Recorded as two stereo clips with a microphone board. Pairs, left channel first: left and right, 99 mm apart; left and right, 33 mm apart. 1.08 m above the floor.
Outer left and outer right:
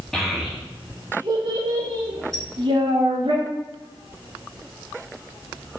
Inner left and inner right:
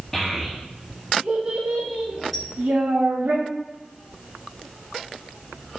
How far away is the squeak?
About 1.4 m.